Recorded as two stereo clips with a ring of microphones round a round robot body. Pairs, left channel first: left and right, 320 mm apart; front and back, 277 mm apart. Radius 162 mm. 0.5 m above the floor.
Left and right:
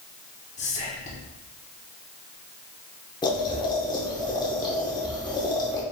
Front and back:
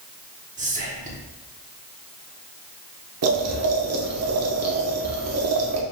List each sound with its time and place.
0.6 s whispering: 140° left, 1.0 m
3.2 s boiling: 165° left, 0.8 m